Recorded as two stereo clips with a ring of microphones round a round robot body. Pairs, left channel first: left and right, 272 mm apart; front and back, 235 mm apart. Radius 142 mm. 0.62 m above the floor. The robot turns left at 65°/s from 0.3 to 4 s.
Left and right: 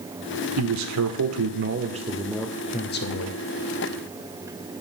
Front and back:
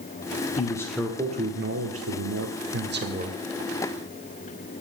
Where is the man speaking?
65° right, 1.8 m; by 3.4 s 110° left, 1.8 m.